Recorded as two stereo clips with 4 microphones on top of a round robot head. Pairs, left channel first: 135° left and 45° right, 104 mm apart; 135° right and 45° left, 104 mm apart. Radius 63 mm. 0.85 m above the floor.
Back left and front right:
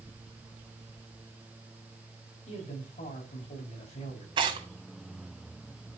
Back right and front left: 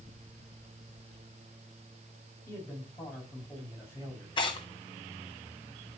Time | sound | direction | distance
2.5 | a man speaking | 160° left | 6.5 m
4.4 | tearing paper | 90° right | 1.9 m